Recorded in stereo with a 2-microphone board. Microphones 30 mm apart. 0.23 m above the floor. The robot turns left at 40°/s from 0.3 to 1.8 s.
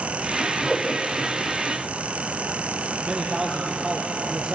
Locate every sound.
0.7 s a whoosh: 10° left (ahead or behind), 7 m; by 0.9 s 20° left (ahead or behind), 7 m
3.0 s a man speaking: 5° right (ahead or behind), 5.5 m